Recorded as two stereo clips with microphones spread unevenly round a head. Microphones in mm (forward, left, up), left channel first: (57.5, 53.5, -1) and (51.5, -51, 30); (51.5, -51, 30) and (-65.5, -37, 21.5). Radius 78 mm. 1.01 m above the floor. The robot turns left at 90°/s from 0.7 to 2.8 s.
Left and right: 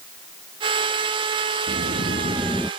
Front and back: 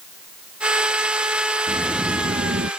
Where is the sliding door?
85° right; by 2.7 s 175° right.